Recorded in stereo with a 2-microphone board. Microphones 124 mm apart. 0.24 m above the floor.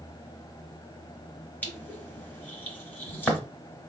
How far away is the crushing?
About 1.0 m.